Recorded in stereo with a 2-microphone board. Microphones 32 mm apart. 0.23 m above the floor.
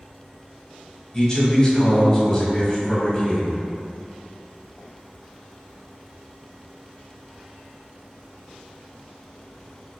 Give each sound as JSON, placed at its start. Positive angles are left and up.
{"t": 1.1, "sound": "a man speaking", "side_deg": 20, "distance_m": 1.0}